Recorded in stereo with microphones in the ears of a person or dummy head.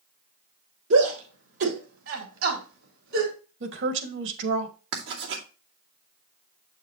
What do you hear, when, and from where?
0.9 s a shout: 75° right (ahead or behind), 4 m; by 3.3 s 80° right, 4 m
3.6 s a woman speaking: 75° right (ahead or behind), 1.8 m
4.9 s writing: 65° right (ahead or behind), 2.5 m